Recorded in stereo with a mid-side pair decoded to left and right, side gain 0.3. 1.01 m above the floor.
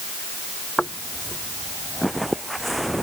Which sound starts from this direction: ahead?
Footsteps, at 0.8 s.